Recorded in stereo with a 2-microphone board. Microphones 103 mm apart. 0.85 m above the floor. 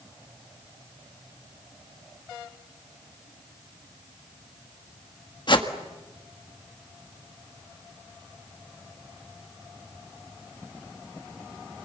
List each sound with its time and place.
5.5 s a whoosh: 50° left (ahead or behind), 1.6 m